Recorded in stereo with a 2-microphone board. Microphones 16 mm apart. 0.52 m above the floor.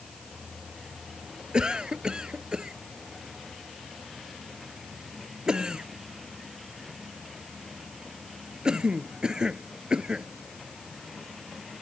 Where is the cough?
55° right (ahead or behind).